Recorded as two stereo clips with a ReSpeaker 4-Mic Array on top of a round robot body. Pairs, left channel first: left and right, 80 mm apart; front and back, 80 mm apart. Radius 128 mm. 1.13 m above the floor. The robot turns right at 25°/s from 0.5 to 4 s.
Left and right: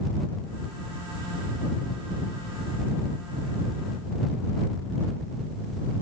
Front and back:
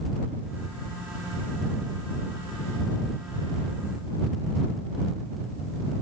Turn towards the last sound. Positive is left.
No sound to turn to.